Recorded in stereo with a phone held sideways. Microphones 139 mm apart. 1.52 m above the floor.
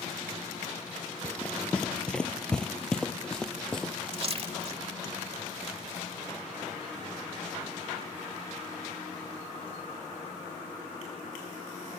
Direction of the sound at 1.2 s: 10° left (ahead or behind).